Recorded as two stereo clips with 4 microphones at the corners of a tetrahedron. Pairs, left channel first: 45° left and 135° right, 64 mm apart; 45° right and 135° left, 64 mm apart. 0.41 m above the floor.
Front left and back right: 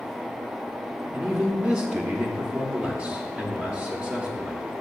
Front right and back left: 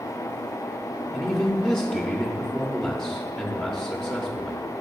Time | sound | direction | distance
1.1 | a man speaking | 95° right | 1.0 m